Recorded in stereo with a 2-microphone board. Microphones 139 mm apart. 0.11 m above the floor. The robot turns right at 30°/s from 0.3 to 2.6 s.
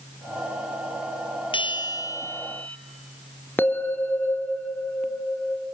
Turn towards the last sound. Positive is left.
turn(degrees=15)  # may be behind; listen again after turning